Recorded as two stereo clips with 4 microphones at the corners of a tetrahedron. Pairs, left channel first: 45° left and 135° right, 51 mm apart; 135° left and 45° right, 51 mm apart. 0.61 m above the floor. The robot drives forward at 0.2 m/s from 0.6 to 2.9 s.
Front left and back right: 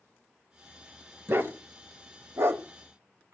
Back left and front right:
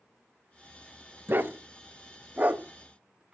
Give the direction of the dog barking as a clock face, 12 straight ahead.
3 o'clock.